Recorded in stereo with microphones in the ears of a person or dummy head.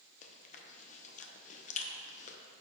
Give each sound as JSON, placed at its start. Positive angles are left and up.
{"t": 0.2, "sound": "chewing", "side_deg": 40, "distance_m": 0.7}